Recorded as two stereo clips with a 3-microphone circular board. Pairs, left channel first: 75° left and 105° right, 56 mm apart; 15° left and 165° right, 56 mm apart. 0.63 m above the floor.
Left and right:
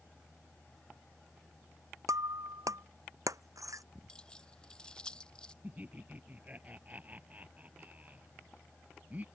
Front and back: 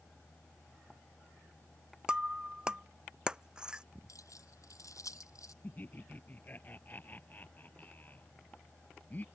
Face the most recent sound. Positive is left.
turn(degrees=-40)